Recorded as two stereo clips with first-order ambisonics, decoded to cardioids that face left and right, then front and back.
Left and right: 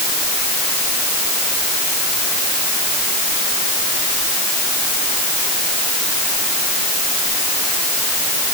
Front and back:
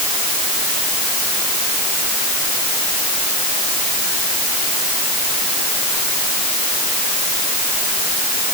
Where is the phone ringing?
I don't hear a phone ringing.